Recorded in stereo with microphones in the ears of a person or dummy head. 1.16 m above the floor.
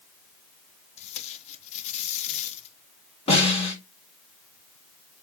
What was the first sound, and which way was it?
Tape being pulled, 40° left (ahead or behind).